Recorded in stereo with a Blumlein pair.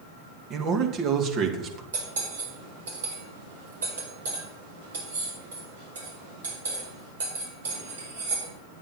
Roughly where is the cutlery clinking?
Ahead right.